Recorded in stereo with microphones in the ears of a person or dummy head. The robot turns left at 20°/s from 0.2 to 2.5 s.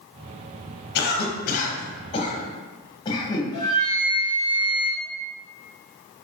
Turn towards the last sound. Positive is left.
turn(degrees=25)  # may be behind; listen again after turning